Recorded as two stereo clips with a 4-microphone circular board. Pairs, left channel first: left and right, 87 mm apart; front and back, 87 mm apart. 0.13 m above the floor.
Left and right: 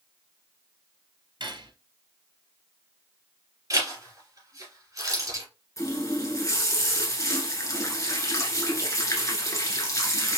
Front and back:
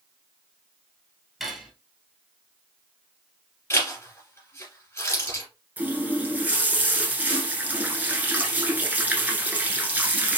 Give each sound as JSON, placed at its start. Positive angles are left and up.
{"t": 1.4, "sound": "cutlery clinking", "azimuth_deg": -90, "distance_m": 1.3}
{"t": 3.7, "sound": "a zipper", "azimuth_deg": -50, "distance_m": 2.5}
{"t": 5.8, "sound": "a running tap", "azimuth_deg": 120, "distance_m": 1.0}